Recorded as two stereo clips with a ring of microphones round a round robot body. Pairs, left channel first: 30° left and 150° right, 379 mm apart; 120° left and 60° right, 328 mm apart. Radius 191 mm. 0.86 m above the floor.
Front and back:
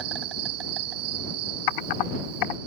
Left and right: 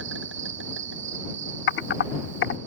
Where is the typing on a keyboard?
65° left.